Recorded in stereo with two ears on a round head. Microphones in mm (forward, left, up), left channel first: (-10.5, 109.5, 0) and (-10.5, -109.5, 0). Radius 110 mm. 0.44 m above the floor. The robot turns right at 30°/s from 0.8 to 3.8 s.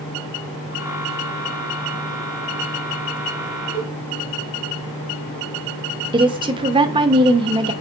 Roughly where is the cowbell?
Centre.